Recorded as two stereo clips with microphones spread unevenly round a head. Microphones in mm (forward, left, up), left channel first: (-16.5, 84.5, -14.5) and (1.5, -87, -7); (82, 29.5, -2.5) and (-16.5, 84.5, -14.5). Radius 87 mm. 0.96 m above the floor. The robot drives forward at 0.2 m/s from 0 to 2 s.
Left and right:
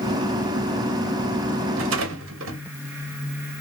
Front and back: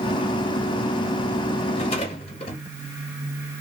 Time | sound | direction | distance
1.8 | a rattle | 85° right | 1.0 m